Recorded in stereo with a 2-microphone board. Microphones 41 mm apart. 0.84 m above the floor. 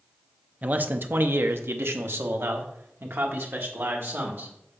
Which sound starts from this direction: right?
A man speaking, at 0.6 s.